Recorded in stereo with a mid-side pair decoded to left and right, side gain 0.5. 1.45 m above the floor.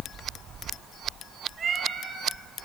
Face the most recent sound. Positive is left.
turn(degrees=-45)